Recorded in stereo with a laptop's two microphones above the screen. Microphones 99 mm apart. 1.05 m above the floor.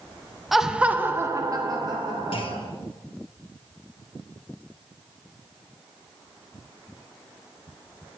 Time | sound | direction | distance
0.5 | laughter | centre (ahead or behind) | 0.8 m
2.3 | a clunk | 65° left (ahead or behind) | 1.6 m